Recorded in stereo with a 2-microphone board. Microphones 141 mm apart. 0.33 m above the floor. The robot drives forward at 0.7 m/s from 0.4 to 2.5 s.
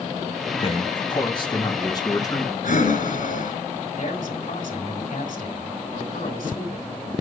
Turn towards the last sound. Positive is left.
turn(degrees=70)  # may be behind; listen again after turning